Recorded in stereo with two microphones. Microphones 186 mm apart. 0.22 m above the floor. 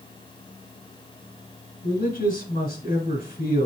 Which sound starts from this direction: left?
A man speaking, at 1.8 s.